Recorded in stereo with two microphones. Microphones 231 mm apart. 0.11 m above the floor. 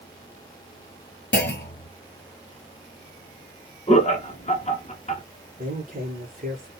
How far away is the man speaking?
About 2.5 m.